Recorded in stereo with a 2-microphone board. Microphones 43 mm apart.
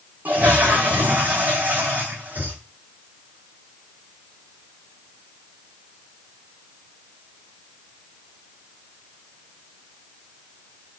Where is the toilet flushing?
40° right (ahead or behind), 1.2 m.